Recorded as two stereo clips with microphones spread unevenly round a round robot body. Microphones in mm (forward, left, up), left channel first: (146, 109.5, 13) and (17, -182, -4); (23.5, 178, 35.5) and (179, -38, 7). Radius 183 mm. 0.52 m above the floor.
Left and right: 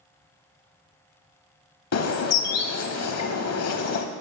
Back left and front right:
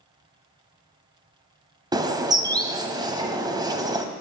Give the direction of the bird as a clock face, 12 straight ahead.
11 o'clock.